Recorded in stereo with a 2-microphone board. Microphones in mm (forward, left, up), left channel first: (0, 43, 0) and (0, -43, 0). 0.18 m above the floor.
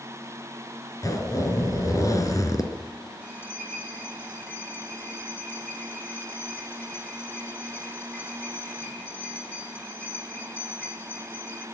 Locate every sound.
1.0 s a zipper: 40° left (ahead or behind), 2.5 m
3.2 s a bell: 20° left (ahead or behind), 6.5 m